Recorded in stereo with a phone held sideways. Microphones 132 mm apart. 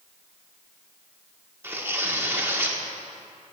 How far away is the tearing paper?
About 1.5 m.